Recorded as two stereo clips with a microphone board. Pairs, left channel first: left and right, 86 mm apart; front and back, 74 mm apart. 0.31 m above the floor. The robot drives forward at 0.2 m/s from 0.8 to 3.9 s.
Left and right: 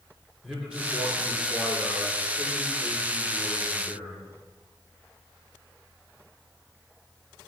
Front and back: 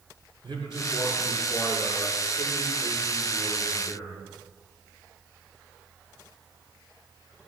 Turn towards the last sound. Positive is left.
turn(degrees=180)